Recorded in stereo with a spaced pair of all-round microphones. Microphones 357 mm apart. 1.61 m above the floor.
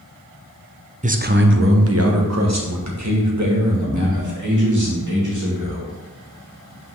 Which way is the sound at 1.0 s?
20° right (ahead or behind).